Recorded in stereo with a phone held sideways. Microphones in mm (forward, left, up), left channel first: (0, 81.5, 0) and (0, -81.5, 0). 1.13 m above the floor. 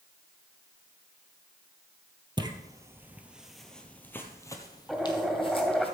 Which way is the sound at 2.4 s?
30° right (ahead or behind).